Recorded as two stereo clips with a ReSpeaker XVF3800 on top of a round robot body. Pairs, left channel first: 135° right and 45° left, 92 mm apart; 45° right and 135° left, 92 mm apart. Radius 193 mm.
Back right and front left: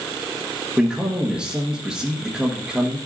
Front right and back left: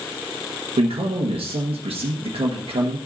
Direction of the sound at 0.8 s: 125° left.